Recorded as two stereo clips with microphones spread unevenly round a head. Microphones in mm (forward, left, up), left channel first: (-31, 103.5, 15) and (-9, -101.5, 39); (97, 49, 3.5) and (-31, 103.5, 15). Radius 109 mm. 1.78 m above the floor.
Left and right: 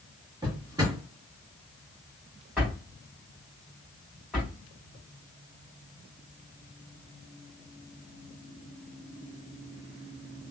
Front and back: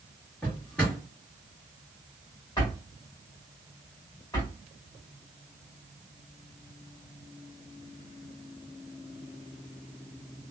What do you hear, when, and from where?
0.4 s a drawer: 105° right, 1.3 m
2.6 s a drawer: 15° right, 1.3 m